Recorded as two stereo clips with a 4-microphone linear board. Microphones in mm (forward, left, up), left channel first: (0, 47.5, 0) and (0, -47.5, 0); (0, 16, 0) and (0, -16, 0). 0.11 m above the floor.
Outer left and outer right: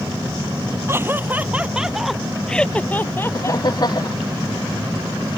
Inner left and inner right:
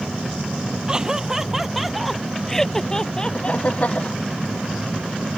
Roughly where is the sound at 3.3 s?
Left.